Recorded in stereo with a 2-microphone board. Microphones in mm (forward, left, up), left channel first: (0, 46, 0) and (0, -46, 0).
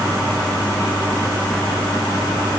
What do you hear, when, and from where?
Only background noise.